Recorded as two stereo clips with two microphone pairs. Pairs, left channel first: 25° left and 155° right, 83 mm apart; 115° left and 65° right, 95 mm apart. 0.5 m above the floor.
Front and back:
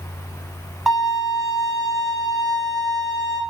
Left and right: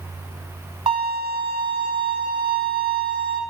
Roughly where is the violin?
Ahead right.